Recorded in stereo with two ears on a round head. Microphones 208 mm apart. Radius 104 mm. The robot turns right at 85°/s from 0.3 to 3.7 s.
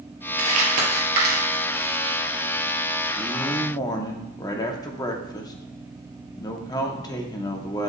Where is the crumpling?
60° right (ahead or behind), 2.5 m; by 2.2 s 30° left (ahead or behind), 2.5 m.